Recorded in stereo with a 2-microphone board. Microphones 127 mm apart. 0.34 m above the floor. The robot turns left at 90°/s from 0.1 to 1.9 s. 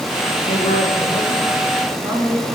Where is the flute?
No flute in this recording.